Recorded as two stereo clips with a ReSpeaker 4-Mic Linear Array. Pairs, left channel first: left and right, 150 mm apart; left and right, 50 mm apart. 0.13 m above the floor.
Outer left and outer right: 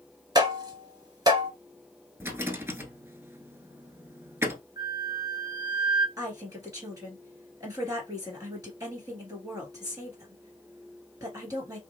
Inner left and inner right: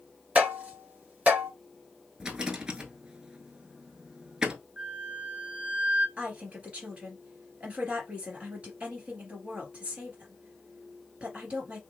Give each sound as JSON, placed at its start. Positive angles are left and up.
{"t": 0.3, "sound": "tapping", "side_deg": -25, "distance_m": 1.6}
{"t": 2.2, "sound": "a rattle", "side_deg": -15, "distance_m": 0.7}
{"t": 4.8, "sound": "a flute", "side_deg": -30, "distance_m": 0.8}
{"t": 6.2, "sound": "a woman speaking", "side_deg": -25, "distance_m": 2.5}